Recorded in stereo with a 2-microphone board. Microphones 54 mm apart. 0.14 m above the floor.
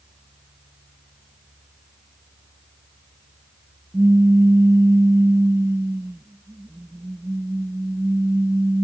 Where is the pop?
55° right (ahead or behind).